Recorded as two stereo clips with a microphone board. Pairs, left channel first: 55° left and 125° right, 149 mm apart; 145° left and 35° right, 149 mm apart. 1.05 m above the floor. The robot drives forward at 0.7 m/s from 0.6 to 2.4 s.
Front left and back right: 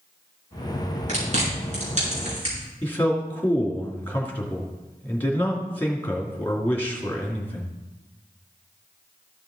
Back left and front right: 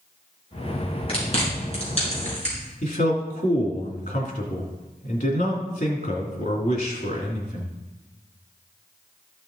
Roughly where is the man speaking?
Behind left.